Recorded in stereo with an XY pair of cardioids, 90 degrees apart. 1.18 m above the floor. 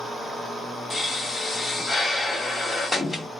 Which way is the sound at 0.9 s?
30° left.